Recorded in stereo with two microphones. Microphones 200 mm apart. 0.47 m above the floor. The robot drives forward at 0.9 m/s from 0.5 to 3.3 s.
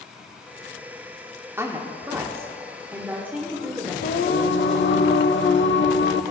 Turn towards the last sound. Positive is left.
turn(degrees=65)  # may be behind; listen again after turning